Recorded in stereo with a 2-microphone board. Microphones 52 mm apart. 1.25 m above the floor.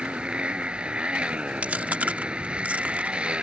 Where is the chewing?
25° right (ahead or behind).